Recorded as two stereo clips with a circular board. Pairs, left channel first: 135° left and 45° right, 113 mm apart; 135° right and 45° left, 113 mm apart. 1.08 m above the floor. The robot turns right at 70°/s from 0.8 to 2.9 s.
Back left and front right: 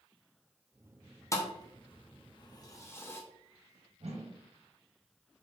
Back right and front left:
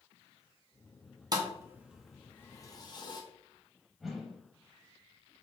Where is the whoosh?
45° right, 0.7 m.